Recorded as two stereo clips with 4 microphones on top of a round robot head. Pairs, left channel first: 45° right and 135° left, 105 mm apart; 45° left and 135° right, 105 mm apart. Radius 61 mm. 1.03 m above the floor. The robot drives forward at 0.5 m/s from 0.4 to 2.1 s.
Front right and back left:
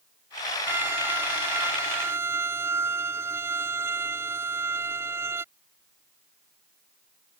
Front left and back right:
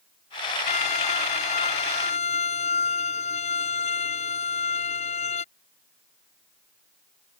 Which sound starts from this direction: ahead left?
A violin, at 0.7 s.